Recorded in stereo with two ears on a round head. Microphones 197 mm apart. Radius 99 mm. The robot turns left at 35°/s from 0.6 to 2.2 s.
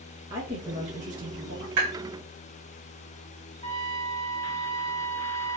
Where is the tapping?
75° right (ahead or behind), 3 m.